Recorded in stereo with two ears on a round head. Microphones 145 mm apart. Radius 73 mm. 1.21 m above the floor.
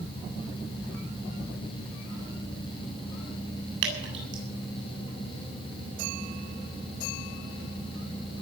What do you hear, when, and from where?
3.8 s dripping: 70° right (ahead or behind), 8 m